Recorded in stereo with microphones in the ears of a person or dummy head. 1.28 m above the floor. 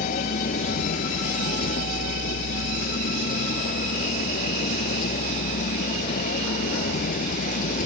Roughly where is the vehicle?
Left.